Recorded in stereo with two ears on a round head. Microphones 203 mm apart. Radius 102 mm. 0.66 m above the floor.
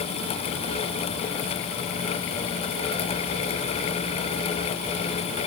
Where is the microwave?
No microwave in this recording.